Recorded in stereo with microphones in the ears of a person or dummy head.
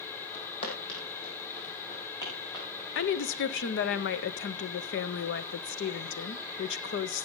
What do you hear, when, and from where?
0.3 s footsteps: 35° left (ahead or behind), 3.5 m; by 2.7 s 20° left (ahead or behind), 5.5 m
3.0 s a woman speaking: 60° left (ahead or behind), 0.6 m